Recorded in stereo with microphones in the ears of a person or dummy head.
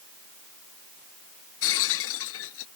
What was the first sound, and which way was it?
Breaking glass, 75° left (ahead or behind).